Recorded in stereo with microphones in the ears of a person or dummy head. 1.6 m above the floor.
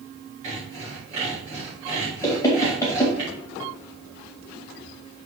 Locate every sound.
0.4 s sawing: 35° right (ahead or behind), 3.5 m
2.2 s knocking: 20° left (ahead or behind), 2.0 m